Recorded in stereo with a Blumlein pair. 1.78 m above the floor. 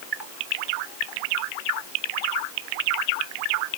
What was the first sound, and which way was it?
Only background noise.